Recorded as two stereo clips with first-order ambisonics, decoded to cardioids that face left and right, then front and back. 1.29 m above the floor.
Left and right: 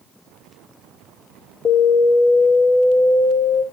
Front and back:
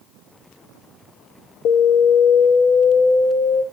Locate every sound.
1.6 s an alarm: 20° left, 1.5 m